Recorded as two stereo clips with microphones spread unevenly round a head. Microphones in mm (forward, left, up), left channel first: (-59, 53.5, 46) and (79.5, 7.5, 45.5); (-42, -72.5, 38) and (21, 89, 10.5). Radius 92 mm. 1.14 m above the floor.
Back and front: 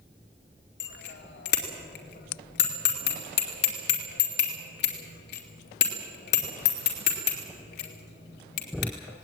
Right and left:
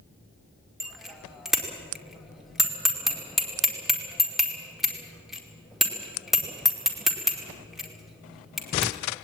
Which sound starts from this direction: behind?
A bicycle bell, at 0.8 s.